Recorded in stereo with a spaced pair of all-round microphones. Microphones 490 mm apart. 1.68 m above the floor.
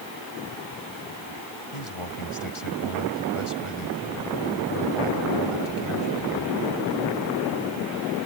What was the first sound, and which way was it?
A man speaking, 85° left.